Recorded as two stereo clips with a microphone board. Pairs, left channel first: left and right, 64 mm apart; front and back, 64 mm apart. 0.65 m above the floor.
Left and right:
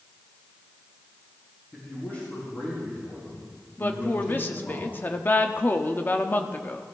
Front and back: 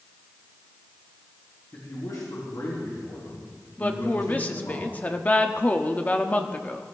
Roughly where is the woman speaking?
Ahead left.